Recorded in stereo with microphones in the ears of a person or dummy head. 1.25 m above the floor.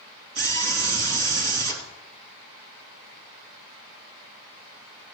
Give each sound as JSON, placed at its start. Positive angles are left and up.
{"t": 0.3, "sound": "a scream", "side_deg": -55, "distance_m": 3.0}